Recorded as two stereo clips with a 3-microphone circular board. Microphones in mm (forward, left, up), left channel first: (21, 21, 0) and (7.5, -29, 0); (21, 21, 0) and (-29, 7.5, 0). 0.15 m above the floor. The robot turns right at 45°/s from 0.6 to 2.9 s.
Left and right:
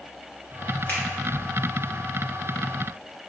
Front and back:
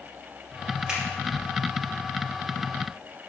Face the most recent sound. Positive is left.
turn(degrees=-145)